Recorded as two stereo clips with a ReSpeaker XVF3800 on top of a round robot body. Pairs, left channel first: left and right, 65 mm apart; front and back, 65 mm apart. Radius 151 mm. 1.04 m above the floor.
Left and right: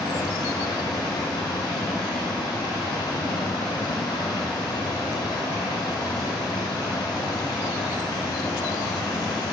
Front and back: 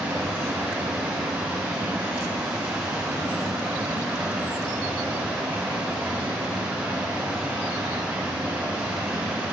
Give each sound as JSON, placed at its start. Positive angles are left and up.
{"t": 0.0, "sound": "running water", "azimuth_deg": 105, "distance_m": 1.0}